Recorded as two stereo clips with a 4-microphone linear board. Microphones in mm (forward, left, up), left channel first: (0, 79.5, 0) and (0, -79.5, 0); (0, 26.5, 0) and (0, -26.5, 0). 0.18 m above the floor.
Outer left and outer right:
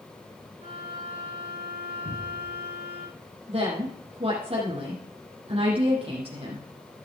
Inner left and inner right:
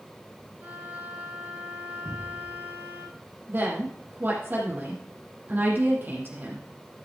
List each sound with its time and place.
0.6 s a violin: 40° right (ahead or behind), 5 m
2.0 s a cupboard door: 70° left (ahead or behind), 5 m
3.5 s a woman speaking: 40° right (ahead or behind), 7 m